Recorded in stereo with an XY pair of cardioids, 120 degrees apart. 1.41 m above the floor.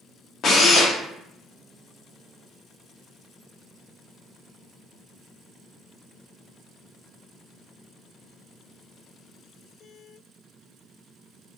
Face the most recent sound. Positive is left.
turn(degrees=45)